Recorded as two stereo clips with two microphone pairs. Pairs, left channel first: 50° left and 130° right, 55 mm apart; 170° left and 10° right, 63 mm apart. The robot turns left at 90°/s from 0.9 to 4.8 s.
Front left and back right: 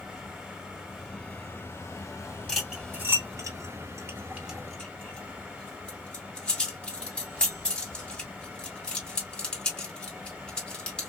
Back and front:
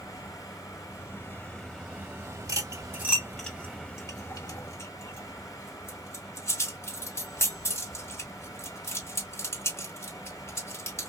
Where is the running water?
150° left, 2.0 m; by 11.1 s 160° left, 2.0 m.